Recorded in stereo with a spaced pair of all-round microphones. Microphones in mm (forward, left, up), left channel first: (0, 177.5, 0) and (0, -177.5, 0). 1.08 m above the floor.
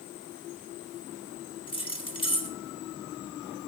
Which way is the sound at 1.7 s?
15° left (ahead or behind).